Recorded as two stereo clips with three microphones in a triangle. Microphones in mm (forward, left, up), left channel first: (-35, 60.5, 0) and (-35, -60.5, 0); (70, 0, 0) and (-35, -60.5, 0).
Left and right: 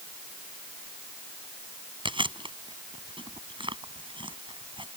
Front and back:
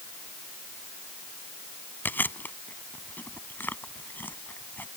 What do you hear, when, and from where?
2.0 s chewing: 45° right